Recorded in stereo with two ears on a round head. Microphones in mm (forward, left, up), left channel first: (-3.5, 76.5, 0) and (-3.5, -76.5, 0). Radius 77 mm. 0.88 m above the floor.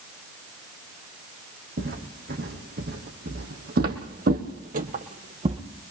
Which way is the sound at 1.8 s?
60° right (ahead or behind).